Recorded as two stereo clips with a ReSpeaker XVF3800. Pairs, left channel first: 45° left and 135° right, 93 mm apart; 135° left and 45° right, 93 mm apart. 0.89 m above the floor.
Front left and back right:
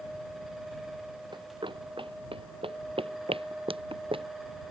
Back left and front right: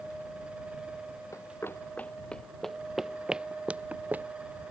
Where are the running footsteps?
170° right; by 4.3 s 120° right.